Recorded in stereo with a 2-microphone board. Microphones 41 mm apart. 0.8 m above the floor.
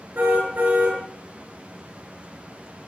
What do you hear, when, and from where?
0.1 s a car horn: 50° right (ahead or behind), 7.5 m